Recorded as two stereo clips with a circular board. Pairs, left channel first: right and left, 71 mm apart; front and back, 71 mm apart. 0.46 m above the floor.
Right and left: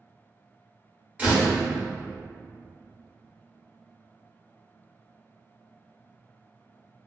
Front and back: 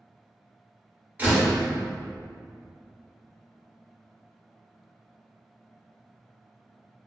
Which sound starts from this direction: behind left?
A door slam, at 1.2 s.